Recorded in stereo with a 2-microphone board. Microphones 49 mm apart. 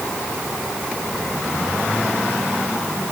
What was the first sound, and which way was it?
Only background noise.